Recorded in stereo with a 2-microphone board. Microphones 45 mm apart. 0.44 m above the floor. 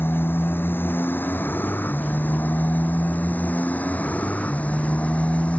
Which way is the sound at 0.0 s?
55° left (ahead or behind).